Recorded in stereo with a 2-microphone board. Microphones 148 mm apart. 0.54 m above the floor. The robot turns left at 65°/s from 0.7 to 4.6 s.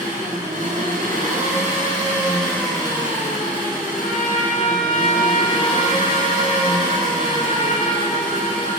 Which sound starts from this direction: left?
A trumpet, at 3.9 s.